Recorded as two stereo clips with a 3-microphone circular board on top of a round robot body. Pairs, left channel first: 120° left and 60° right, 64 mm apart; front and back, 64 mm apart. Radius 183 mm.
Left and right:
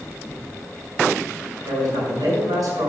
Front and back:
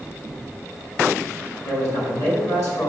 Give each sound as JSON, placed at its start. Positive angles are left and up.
{"t": 1.6, "sound": "a man speaking", "azimuth_deg": -35, "distance_m": 5.0}